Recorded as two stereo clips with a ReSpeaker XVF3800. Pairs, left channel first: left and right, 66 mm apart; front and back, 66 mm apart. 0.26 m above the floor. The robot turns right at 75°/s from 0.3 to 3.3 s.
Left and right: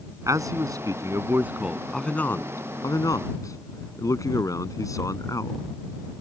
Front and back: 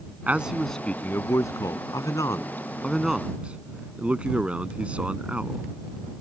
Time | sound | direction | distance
0.3 | a man speaking | 115° right | ?